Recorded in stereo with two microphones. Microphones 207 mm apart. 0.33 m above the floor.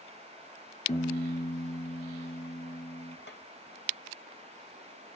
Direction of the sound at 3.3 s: 55° left (ahead or behind).